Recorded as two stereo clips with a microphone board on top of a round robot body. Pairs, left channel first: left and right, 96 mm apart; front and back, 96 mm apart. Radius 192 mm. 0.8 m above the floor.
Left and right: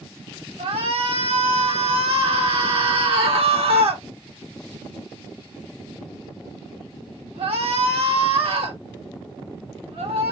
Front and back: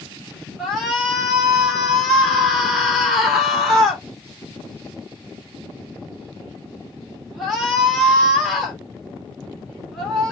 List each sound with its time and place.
0.6 s a shout: 90° right, 1.6 m